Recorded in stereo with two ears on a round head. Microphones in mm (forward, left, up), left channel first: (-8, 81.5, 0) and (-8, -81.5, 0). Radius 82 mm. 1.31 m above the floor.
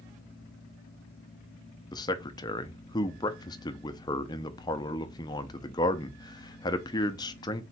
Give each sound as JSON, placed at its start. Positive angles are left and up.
{"t": 1.9, "sound": "a man speaking", "side_deg": 20, "distance_m": 0.5}